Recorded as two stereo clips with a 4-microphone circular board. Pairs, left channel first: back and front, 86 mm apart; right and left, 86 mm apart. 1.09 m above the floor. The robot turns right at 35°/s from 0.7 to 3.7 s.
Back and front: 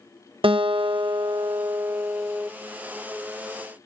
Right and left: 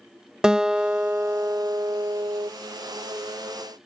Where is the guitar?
10° left; by 2.5 s 70° left.